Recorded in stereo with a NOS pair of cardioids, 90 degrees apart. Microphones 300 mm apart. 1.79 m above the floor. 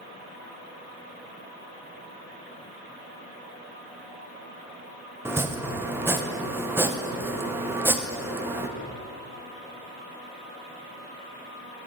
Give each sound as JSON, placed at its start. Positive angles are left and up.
{"t": 5.2, "sound": "chopping", "azimuth_deg": -10, "distance_m": 0.6}